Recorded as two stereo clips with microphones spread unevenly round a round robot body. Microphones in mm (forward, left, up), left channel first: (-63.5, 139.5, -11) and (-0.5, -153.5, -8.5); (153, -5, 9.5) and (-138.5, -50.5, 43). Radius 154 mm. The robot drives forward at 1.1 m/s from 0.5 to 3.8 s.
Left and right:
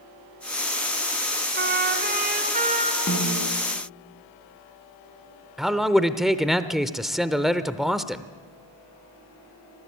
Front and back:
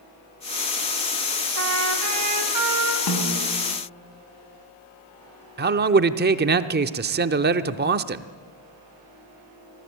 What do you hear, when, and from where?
1.6 s a trumpet: 130° right, 3 m; by 3.0 s 150° right, 4 m
3.1 s a snare drum: 40° left, 4 m; by 3.5 s 45° left, 3.5 m
5.6 s a man speaking: 165° right, 0.8 m